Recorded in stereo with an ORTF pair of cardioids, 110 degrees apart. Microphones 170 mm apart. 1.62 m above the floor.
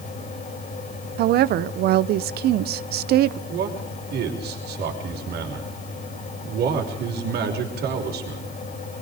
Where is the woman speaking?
70° right, 0.9 m.